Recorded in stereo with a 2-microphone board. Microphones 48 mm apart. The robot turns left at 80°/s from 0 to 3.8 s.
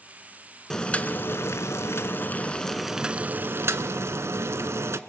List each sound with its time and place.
0.7 s boiling: 170° left, 0.8 m; by 5.0 s 80° right, 0.8 m